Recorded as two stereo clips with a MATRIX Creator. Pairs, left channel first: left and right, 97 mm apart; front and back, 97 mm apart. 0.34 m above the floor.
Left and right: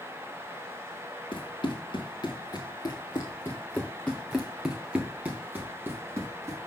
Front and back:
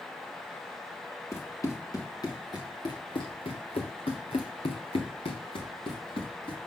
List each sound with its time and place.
1.3 s running footsteps: 60° left, 1.9 m; by 6.6 s 30° right, 2 m